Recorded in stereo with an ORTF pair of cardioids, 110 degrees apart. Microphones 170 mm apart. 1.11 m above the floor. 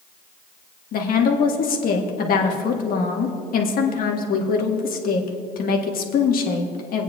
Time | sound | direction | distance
0.9 | a woman speaking | 60° left | 1.6 m